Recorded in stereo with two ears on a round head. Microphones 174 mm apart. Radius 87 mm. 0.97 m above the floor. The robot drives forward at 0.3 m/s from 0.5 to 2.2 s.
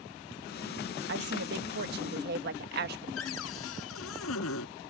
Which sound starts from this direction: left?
A cupboard door, at 3.2 s.